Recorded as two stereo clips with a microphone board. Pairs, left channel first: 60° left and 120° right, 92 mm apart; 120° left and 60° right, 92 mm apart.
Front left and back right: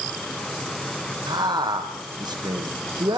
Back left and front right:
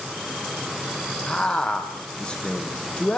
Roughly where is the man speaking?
Behind.